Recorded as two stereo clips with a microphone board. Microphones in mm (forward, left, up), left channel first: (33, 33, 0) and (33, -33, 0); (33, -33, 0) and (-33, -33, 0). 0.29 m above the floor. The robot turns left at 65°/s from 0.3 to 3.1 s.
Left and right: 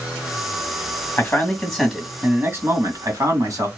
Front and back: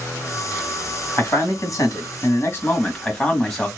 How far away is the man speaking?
About 2 m.